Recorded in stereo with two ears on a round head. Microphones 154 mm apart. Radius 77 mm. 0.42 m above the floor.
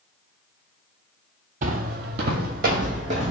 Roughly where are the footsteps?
Right.